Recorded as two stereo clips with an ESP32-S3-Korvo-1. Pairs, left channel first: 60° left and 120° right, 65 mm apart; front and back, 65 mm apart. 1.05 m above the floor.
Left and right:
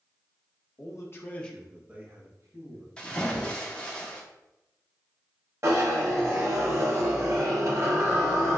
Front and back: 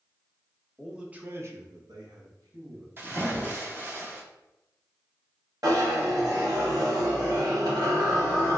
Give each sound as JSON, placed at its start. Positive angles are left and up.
{"t": 0.8, "sound": "a man speaking", "azimuth_deg": 95, "distance_m": 0.9}
{"t": 3.0, "sound": "a splash", "azimuth_deg": 130, "distance_m": 0.7}
{"t": 5.6, "sound": "a zipper", "azimuth_deg": -160, "distance_m": 1.2}